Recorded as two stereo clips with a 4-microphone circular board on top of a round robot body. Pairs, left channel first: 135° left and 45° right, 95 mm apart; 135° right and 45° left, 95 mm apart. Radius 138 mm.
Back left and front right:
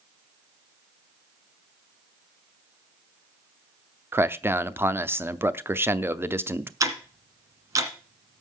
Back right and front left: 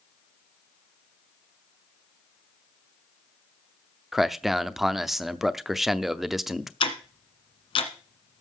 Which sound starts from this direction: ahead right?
A man speaking, at 4.1 s.